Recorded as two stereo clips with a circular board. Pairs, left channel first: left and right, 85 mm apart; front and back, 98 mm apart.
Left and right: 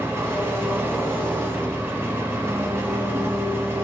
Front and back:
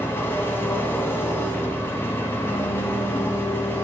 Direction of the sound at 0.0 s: 50° right.